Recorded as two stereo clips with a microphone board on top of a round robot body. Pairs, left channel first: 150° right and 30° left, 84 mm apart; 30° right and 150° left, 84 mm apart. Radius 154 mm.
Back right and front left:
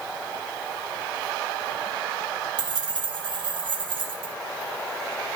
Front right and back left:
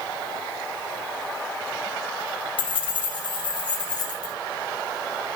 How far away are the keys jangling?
About 2.5 m.